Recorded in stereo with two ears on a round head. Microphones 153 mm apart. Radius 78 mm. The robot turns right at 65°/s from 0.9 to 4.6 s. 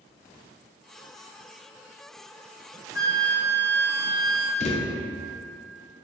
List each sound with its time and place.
3.0 s a flute: 50° left, 0.5 m; by 4.5 s 155° left, 0.5 m
4.6 s a thud: 45° left (ahead or behind), 0.6 m